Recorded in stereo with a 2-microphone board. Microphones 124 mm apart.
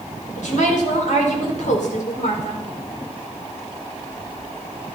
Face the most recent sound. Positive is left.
turn(degrees=80)